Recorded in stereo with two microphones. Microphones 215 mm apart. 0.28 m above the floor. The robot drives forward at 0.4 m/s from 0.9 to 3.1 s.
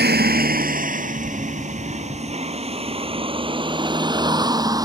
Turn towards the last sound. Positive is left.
turn(degrees=-15)  # may be behind; listen again after turning